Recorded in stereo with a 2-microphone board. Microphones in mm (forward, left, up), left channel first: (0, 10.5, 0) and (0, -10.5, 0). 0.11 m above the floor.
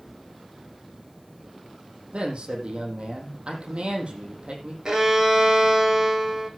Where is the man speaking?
70° right (ahead or behind), 5 m.